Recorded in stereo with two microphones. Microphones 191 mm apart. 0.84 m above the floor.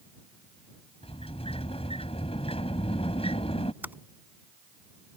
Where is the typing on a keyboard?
10° right (ahead or behind).